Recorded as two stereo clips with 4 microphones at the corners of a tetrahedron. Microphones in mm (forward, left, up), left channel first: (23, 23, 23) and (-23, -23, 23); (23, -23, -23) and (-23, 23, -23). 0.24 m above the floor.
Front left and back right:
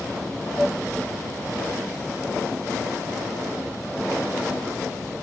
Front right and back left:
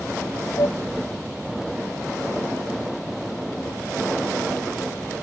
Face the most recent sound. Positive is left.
turn(degrees=-40)